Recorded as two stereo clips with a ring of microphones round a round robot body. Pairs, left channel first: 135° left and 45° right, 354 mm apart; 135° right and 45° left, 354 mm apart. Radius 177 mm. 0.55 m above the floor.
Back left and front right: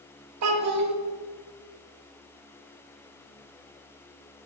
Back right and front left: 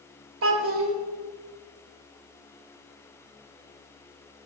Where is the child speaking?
5° right, 0.7 m.